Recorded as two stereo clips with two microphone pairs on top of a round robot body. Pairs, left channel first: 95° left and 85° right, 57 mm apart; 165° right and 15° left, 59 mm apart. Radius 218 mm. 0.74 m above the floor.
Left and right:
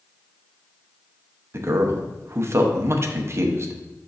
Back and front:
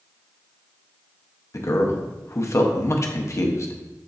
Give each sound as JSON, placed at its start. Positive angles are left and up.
{"t": 1.5, "sound": "a man speaking", "azimuth_deg": -125, "distance_m": 1.0}